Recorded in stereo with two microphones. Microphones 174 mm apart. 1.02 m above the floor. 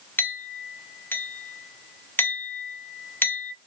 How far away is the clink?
About 0.6 m.